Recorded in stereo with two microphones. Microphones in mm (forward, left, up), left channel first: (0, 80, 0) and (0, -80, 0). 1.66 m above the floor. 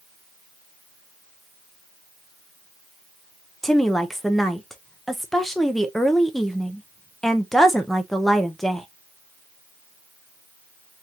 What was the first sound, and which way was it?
A woman speaking, centre (ahead or behind).